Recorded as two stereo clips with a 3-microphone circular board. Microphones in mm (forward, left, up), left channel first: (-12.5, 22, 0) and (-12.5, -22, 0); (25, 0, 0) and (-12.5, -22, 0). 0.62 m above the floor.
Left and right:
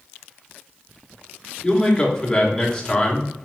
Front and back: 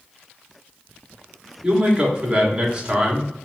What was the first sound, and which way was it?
A man speaking, 150° left.